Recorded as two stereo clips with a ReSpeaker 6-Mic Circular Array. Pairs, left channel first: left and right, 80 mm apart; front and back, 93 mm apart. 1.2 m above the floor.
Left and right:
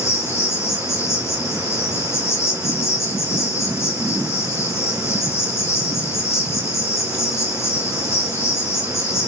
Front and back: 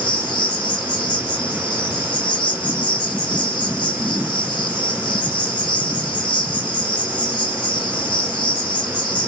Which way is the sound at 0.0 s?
35° left.